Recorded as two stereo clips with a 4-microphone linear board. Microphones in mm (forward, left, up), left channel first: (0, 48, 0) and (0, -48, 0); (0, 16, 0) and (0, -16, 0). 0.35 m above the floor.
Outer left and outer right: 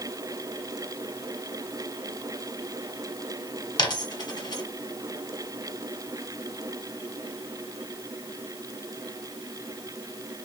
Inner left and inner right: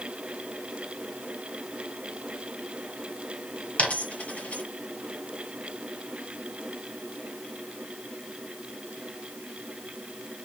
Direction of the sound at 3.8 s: 50° left (ahead or behind).